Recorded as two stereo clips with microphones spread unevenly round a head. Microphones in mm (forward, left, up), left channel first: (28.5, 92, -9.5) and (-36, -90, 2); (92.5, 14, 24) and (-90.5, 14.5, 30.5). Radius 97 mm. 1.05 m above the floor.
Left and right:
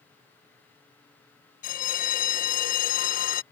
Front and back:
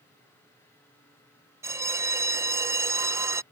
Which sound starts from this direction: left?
A bell, at 1.6 s.